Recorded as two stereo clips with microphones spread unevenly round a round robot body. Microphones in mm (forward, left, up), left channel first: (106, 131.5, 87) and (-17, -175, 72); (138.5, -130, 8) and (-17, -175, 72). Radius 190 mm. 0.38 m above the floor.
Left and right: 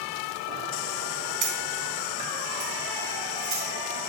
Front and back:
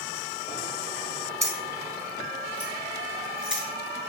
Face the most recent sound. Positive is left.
turn(degrees=-75)